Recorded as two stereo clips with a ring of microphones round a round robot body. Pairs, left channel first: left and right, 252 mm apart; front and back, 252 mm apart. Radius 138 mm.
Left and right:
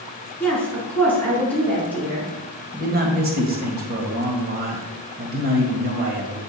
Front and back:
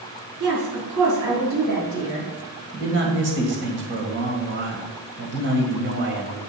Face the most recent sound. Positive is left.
turn(degrees=-140)